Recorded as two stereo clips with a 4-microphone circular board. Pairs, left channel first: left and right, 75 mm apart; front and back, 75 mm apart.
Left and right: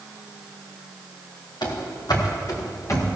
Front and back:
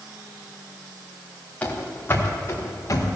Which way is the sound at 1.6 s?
70° left.